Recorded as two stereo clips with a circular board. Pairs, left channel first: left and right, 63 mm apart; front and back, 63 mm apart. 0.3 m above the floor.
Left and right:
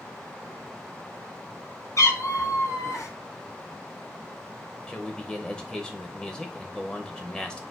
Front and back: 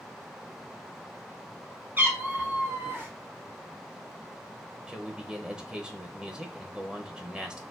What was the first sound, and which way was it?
A cat meowing, 120° left.